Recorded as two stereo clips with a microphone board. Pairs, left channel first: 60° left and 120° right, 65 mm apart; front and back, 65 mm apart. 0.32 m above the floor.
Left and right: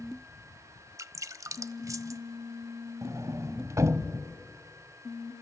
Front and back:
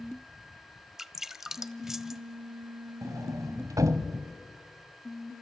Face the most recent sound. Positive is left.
turn(degrees=-155)